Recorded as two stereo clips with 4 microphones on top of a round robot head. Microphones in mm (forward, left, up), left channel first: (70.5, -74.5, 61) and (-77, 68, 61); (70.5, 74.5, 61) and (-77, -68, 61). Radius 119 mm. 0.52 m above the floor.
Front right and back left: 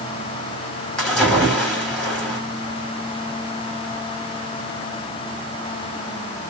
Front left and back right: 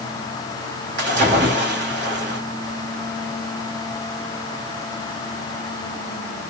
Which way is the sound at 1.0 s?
130° right.